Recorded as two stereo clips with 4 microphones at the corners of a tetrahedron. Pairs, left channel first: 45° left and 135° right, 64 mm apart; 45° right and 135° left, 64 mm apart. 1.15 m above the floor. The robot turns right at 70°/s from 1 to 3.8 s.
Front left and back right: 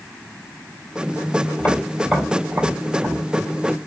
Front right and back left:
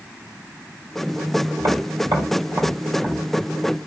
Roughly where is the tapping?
Left.